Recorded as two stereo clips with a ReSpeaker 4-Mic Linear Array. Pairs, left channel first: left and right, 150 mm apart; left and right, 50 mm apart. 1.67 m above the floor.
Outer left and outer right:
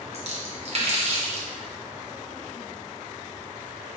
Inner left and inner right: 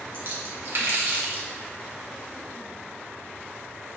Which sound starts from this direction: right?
A splash, at 0.1 s.